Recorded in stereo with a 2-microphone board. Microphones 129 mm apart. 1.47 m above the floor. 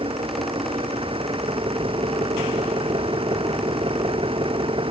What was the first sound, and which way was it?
An engine running, 45° right (ahead or behind).